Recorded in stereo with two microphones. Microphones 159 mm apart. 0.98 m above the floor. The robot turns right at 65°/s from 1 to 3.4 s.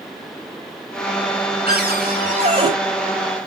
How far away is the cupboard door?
About 4 m.